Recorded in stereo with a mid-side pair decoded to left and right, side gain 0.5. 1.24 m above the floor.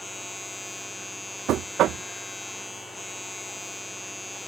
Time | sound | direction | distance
0.0 | a machine running | 15° left | ?
1.5 | knocking | 65° right | ?